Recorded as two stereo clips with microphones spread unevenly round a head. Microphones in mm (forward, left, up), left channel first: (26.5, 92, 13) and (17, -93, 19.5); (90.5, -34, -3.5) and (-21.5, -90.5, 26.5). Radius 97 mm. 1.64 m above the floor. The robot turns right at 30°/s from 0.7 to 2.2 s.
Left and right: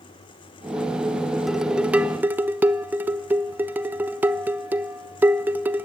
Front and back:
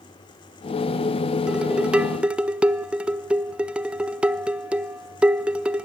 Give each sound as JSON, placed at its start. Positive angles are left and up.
{"t": 1.5, "sound": "dishes clattering", "azimuth_deg": -175, "distance_m": 0.6}